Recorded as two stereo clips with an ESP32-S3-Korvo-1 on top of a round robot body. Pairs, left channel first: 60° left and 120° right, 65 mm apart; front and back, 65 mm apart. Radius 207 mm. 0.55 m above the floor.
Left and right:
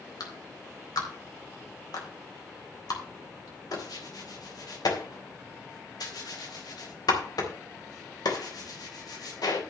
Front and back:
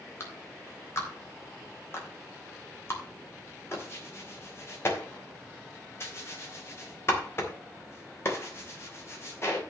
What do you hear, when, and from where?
0.2 s a clap: 50° left, 3.5 m